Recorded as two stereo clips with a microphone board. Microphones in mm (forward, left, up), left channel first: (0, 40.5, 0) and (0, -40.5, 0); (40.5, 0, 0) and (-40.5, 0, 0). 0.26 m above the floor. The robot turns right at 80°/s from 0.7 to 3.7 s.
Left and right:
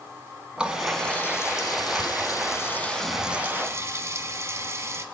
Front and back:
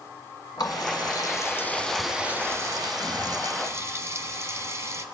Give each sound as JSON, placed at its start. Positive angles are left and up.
{"t": 0.6, "sound": "a running tap", "azimuth_deg": -15, "distance_m": 1.4}